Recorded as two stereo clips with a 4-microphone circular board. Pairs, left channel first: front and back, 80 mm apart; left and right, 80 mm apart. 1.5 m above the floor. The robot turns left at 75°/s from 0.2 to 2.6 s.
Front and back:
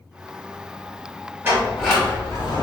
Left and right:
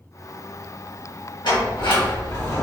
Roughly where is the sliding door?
Behind left.